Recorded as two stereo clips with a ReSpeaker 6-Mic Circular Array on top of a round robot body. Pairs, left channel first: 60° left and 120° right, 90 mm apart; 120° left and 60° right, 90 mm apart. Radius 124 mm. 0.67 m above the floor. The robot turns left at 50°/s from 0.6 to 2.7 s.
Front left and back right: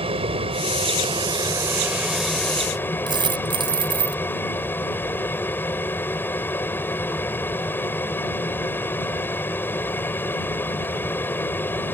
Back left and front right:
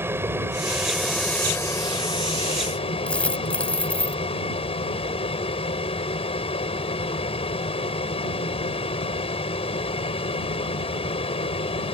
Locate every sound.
0.0 s an aircraft: 125° right; by 11.9 s 130° left
3.1 s a dropped coin: 160° right